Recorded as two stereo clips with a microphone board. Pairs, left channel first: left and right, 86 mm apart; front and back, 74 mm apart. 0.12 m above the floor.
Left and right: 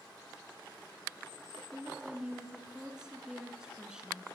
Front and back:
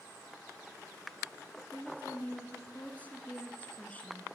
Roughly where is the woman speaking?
Ahead right.